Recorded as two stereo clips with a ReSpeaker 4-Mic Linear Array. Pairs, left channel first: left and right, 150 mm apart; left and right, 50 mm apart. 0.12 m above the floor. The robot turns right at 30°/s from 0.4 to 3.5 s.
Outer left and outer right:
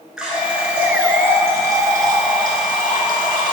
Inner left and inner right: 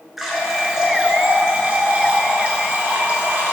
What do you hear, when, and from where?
0.2 s a running tap: 170° right, 0.9 m; by 3.5 s 80° right, 0.9 m